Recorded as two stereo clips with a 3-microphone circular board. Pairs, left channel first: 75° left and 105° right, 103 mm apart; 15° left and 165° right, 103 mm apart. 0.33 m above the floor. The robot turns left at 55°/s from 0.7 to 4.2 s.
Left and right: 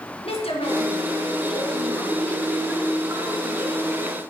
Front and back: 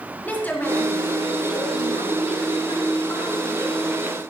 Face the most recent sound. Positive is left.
turn(degrees=-105)